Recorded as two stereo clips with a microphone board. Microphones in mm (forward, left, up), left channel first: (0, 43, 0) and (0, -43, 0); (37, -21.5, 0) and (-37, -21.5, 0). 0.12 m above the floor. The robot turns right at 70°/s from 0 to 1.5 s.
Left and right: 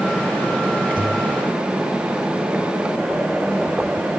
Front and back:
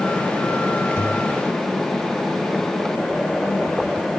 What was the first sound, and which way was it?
A pop, 65° right.